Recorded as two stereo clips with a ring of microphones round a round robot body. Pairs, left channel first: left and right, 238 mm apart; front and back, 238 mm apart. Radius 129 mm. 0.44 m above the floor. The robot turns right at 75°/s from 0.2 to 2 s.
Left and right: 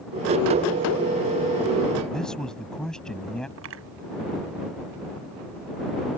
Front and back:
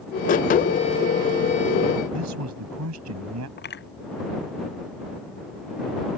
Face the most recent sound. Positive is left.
turn(degrees=-45)